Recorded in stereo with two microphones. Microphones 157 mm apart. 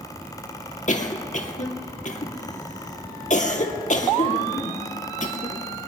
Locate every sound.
0.9 s a cough: 55° left (ahead or behind), 2.5 m